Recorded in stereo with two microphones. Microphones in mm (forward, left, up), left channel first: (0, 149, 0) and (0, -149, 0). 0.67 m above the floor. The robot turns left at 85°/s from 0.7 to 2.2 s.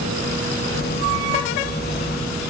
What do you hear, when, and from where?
Only background noise.